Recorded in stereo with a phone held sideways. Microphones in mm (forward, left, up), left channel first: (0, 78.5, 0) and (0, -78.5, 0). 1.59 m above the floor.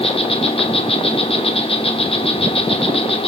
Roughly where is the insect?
Left.